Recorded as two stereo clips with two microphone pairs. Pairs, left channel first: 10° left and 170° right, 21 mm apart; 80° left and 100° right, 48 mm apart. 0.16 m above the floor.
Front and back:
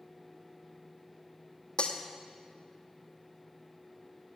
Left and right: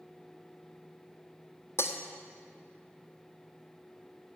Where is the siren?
I don't hear a siren.